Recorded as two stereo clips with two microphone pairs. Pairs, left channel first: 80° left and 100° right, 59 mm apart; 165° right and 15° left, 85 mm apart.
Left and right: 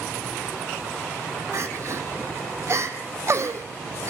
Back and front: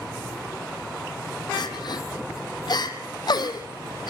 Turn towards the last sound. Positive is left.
turn(degrees=-135)